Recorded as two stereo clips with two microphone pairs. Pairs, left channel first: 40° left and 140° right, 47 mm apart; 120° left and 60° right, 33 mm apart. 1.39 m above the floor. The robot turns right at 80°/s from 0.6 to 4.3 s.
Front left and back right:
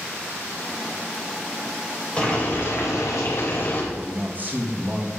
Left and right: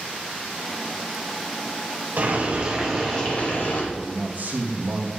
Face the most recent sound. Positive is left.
turn(degrees=-85)